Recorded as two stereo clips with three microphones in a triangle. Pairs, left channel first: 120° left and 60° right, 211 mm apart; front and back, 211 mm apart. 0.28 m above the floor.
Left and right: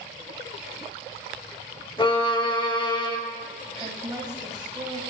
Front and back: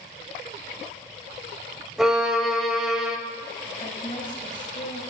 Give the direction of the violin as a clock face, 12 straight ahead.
9 o'clock.